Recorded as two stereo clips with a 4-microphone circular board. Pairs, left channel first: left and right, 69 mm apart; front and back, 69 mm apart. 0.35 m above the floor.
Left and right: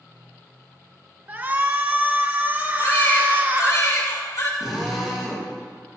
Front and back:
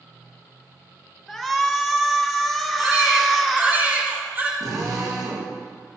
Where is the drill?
Straight behind, 5.5 m.